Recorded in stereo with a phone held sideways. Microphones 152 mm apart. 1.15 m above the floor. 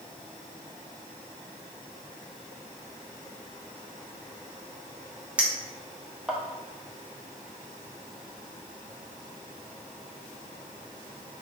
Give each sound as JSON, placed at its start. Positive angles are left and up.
{"t": 5.4, "sound": "a clink", "side_deg": -10, "distance_m": 0.8}